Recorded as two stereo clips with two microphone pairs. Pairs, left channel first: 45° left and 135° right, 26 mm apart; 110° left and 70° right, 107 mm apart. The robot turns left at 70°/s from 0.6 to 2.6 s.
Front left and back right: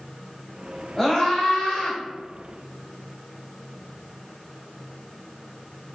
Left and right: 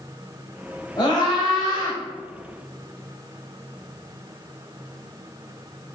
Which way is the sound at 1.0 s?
125° left.